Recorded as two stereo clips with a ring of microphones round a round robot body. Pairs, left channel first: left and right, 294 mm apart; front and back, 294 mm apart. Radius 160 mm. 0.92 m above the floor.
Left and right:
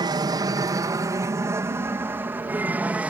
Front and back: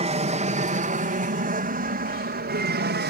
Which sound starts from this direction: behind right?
An aircraft, at 0.0 s.